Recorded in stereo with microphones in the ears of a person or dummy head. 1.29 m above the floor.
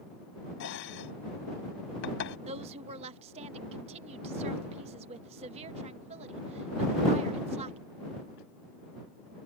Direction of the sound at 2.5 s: 35° right (ahead or behind).